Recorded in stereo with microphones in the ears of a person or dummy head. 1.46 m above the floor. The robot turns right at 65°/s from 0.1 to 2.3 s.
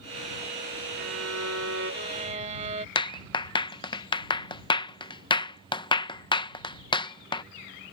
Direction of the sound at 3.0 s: 20° left (ahead or behind).